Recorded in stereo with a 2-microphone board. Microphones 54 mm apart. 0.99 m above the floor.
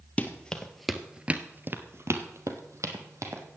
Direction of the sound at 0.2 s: 25° left (ahead or behind).